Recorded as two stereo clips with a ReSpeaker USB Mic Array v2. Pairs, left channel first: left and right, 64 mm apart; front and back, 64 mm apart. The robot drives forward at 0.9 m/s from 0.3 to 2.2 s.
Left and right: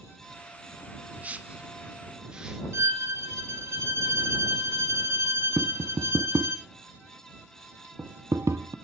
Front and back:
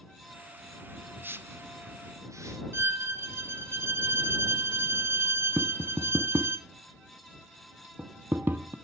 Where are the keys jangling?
I don't hear keys jangling.